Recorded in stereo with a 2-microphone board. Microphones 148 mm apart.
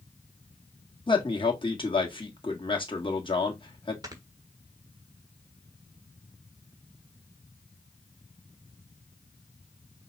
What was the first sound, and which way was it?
A man speaking, 35° left (ahead or behind).